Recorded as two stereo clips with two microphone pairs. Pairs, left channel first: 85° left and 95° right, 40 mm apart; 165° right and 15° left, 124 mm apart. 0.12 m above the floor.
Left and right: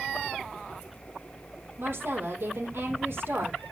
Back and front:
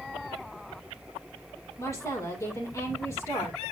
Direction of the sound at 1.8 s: 100° right.